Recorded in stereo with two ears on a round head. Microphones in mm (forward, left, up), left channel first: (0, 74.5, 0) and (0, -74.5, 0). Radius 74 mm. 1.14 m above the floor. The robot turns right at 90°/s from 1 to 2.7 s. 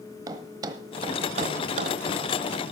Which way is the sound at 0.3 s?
25° right (ahead or behind).